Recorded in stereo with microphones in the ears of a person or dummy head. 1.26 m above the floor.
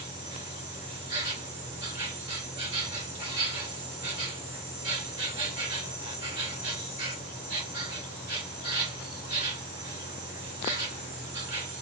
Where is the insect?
15° right (ahead or behind), 3 m.